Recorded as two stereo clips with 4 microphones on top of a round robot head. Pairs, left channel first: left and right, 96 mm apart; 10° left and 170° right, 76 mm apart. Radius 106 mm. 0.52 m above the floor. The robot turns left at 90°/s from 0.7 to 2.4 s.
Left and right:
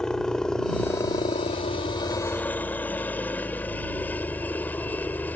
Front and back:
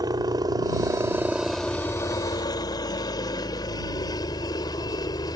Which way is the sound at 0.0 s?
170° left.